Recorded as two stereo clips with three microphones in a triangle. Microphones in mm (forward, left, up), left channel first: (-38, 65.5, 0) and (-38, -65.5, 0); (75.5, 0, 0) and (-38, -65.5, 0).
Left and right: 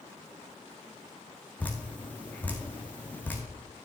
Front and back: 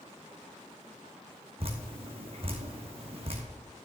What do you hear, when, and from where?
1.6 s dripping: 165° left, 1.7 m